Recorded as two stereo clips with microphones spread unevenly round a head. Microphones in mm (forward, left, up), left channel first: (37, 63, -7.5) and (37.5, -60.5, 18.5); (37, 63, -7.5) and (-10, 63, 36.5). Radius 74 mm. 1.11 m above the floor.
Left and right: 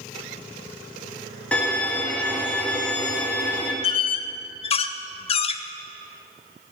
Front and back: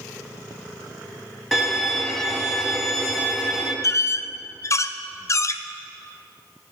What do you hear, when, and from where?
1.5 s a violin: straight behind, 1.2 m
3.8 s a squeak: 70° left, 0.6 m